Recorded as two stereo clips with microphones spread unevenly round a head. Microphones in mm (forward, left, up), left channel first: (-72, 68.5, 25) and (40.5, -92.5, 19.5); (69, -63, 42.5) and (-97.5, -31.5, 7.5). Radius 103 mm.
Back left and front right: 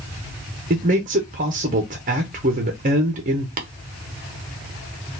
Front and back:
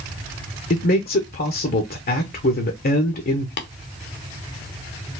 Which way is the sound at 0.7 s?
30° right.